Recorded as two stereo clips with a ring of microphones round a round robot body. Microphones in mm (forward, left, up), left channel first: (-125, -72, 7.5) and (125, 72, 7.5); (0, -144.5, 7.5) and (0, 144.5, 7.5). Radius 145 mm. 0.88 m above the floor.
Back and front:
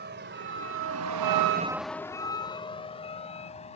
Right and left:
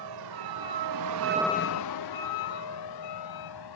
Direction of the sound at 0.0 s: 85° left.